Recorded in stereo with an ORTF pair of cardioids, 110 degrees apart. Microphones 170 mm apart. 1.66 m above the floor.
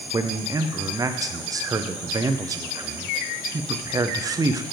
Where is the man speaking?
20° right, 0.6 m.